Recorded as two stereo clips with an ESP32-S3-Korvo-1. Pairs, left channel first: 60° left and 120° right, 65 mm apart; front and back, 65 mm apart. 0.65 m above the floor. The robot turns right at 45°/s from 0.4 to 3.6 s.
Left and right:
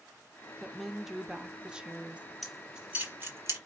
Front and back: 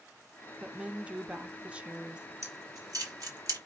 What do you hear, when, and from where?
0.6 s a woman speaking: 145° left, 0.6 m; by 2.3 s 140° right, 0.6 m
2.4 s keys jangling: 145° left, 1.4 m; by 3.6 s 160° right, 1.4 m